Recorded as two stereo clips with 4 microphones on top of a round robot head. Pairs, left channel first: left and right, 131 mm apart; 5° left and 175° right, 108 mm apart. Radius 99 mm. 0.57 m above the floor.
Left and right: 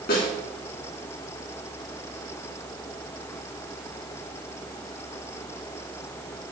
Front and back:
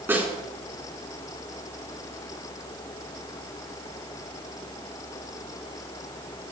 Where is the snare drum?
115° left, 4 m.